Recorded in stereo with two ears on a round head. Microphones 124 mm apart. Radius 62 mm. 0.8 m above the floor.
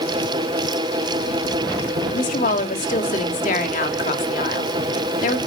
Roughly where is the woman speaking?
Left.